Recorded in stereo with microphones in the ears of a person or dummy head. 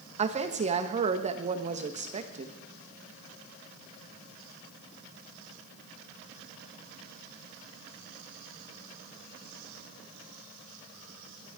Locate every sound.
0.2 s a woman speaking: 30° right (ahead or behind), 1.3 m